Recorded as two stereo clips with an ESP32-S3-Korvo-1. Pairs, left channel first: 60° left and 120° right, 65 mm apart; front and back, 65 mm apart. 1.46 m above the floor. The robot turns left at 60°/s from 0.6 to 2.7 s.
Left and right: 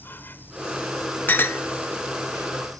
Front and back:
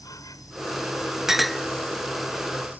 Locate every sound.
0.0 s an insect: 5° left; by 2.8 s 120° right
1.3 s a clink: 100° left; by 1.6 s 80° left